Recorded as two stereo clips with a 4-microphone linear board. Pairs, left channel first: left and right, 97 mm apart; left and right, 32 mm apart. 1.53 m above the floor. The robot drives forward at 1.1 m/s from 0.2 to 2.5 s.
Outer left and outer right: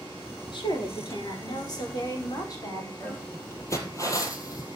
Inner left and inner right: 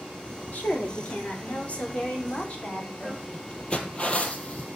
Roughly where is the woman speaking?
Left.